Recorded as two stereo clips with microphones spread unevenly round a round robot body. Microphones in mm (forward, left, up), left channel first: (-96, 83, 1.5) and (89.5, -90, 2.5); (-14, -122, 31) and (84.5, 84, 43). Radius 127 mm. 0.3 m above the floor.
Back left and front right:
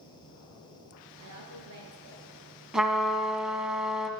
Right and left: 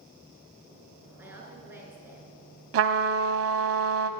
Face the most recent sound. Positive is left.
turn(degrees=45)